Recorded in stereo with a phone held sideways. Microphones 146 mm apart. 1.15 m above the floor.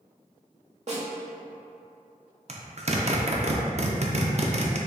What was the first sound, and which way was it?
A snare drum, 50° right (ahead or behind).